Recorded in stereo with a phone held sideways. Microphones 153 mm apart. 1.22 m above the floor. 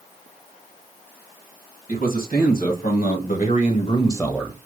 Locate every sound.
1.9 s a man speaking: 75° left (ahead or behind), 2 m; by 4.6 s 15° right (ahead or behind), 0.6 m